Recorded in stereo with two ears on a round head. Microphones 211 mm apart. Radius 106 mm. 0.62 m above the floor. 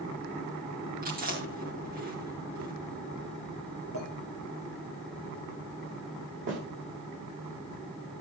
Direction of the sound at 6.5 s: 50° right (ahead or behind).